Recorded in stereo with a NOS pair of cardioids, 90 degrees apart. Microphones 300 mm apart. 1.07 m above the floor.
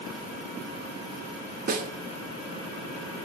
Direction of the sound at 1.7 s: 30° right.